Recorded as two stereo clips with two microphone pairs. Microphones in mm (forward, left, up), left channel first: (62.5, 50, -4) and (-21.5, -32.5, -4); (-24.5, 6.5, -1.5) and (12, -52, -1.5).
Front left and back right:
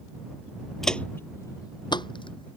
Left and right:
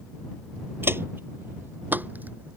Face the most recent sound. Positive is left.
turn(degrees=5)